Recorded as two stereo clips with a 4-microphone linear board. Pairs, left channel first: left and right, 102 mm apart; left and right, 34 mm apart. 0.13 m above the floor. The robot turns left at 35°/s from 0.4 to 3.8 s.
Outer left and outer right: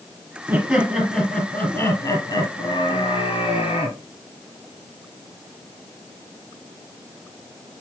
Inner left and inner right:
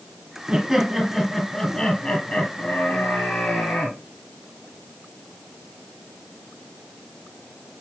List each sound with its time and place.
0.5 s laughter: 165° right, 2.5 m; by 4.0 s 75° left, 2.5 m